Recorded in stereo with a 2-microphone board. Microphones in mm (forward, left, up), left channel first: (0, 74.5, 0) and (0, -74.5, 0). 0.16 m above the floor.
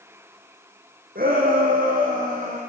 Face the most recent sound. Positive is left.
turn(degrees=-65)  # may be behind; listen again after turning